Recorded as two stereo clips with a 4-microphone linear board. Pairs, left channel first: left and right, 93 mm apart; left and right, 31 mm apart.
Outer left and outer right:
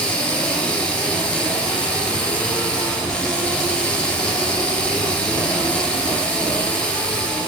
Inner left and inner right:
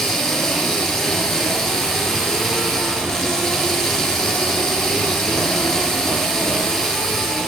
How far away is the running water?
About 4 m.